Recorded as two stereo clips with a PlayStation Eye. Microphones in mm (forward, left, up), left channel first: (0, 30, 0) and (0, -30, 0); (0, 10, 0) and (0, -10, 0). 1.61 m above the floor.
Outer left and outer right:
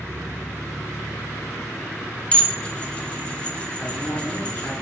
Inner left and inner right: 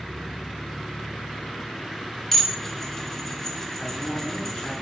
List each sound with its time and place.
2.3 s dishes clattering: 20° left (ahead or behind), 0.6 m
3.8 s a man speaking: 50° left (ahead or behind), 2 m